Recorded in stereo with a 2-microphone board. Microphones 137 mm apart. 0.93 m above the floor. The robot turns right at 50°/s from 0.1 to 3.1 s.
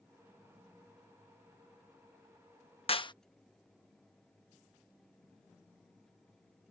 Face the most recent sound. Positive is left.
turn(degrees=35)  # may be behind; listen again after turning